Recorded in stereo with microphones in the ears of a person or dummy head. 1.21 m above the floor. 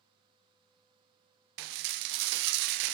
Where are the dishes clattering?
60° right (ahead or behind), 0.5 m.